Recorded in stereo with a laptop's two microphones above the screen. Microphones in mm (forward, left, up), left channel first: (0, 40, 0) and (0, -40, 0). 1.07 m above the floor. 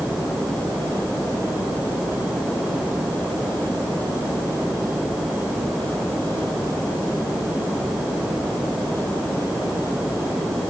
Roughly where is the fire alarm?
No fire alarm in this recording.